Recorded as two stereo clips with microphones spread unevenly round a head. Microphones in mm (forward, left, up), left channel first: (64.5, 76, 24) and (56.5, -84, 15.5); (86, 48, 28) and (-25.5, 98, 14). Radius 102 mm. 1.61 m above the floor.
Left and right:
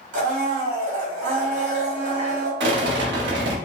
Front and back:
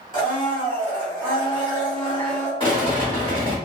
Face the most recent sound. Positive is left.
turn(degrees=-90)